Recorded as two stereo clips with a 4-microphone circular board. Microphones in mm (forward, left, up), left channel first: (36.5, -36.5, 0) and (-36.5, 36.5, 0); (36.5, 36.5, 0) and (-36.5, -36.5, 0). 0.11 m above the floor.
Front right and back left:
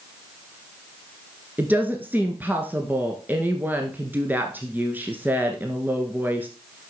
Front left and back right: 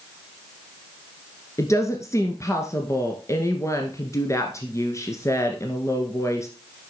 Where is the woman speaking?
75° left, 1.6 m.